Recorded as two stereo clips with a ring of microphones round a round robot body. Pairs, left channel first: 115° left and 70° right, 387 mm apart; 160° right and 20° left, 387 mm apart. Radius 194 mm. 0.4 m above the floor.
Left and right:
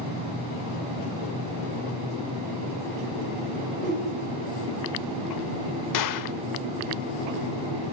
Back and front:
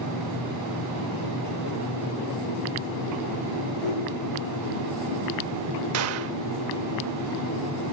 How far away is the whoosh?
About 7.5 m.